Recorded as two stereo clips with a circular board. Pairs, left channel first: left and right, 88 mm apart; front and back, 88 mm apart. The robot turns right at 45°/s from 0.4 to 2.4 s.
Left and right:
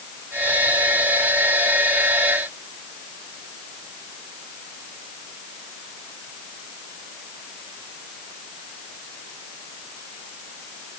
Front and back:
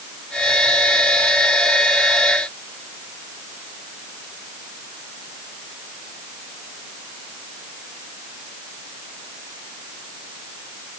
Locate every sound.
Only background noise.